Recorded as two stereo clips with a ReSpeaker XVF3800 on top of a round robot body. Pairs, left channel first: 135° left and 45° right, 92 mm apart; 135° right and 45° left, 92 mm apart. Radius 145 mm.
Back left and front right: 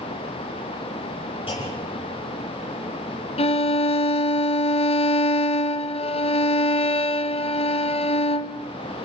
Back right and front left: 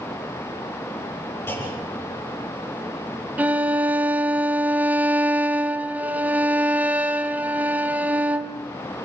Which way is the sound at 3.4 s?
120° left.